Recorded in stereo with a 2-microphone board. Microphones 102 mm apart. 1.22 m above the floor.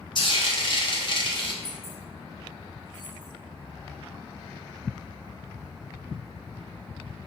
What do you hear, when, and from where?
0.1 s frying: 45° left (ahead or behind), 0.7 m
1.6 s keys jangling: 65° left (ahead or behind), 1.6 m